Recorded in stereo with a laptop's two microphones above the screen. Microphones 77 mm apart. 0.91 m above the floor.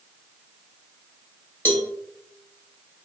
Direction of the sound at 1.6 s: 30° left (ahead or behind).